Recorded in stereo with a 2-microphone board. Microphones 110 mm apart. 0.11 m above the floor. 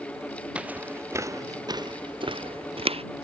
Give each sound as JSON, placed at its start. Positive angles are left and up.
{"t": 0.6, "sound": "footsteps", "side_deg": -10}